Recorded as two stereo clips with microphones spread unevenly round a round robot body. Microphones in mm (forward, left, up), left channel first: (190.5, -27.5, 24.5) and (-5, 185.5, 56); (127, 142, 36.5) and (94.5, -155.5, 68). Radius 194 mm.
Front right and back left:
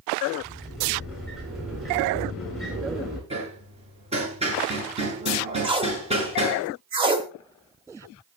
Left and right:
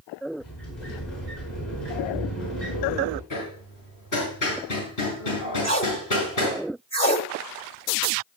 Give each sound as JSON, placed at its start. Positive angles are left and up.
{"t": 0.4, "sound": "a sliding door", "azimuth_deg": 45, "distance_m": 7.5}
{"t": 3.3, "sound": "hammering", "azimuth_deg": 65, "distance_m": 6.0}
{"t": 5.6, "sound": "tape being pulled", "azimuth_deg": 145, "distance_m": 0.7}